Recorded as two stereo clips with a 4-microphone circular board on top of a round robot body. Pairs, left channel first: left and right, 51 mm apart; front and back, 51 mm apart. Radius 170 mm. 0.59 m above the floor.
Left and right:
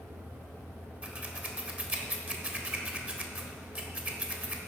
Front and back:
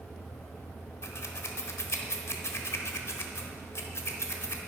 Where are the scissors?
30° right, 1.3 m.